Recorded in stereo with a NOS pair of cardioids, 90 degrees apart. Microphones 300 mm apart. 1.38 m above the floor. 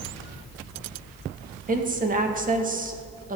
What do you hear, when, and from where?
1.7 s a woman speaking: 25° right, 1.9 m